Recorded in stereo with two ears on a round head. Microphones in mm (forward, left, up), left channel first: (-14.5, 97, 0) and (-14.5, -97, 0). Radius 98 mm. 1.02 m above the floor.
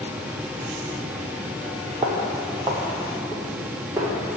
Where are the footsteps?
20° right (ahead or behind), 1.0 m; by 4.1 s 10° right (ahead or behind), 2.5 m.